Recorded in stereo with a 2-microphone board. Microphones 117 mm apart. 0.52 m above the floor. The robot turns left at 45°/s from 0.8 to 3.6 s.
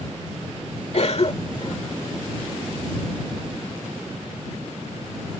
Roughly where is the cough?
Left.